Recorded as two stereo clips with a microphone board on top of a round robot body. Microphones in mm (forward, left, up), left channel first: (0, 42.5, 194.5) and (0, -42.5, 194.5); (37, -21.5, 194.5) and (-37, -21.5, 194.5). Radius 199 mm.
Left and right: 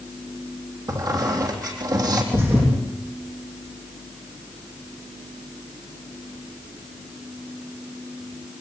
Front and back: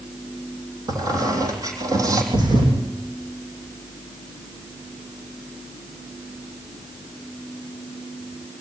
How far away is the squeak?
About 3.5 m.